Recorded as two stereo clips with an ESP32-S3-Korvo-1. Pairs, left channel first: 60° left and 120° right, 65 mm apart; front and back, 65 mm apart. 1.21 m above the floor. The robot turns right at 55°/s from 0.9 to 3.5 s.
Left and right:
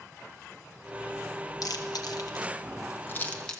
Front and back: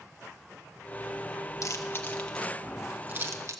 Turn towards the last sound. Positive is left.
turn(degrees=140)